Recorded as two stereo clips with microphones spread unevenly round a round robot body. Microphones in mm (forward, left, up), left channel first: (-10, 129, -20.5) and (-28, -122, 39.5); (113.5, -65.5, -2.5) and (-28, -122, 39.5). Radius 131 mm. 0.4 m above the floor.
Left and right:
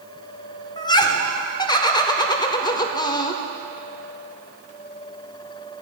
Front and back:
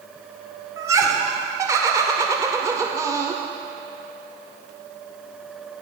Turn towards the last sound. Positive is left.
turn(degrees=120)